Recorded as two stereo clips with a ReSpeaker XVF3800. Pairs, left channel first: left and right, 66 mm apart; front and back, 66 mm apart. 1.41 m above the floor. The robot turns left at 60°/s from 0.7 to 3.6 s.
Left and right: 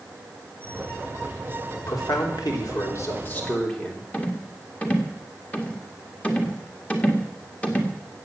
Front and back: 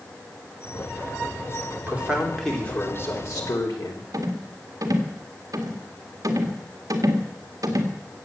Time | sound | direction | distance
1.9 | a man speaking | 120° left | 3.5 m
4.1 | a rattle | 160° left | 1.8 m